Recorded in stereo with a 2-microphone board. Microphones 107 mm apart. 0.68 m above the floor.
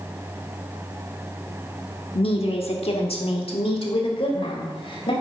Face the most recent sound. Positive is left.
turn(degrees=55)  # may be behind; listen again after turning